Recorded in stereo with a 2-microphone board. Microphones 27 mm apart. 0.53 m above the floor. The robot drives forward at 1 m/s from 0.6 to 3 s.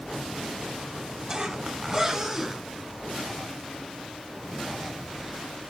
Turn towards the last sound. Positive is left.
turn(degrees=-5)  # may be behind; listen again after turning